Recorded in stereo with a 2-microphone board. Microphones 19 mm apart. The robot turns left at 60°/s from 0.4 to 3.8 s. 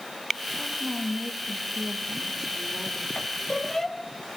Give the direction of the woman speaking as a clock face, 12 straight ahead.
3 o'clock.